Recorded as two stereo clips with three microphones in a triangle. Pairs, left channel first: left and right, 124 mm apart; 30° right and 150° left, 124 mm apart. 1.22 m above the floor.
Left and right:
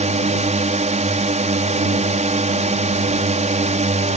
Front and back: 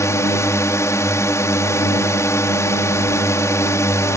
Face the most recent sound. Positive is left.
turn(degrees=-95)